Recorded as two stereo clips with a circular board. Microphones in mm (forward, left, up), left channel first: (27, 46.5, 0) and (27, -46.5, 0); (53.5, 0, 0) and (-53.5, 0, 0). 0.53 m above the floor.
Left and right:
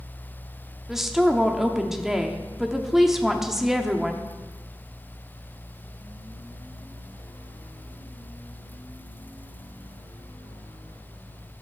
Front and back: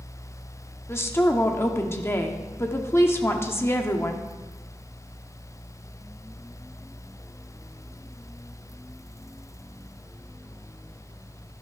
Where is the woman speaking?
10° right, 0.9 m.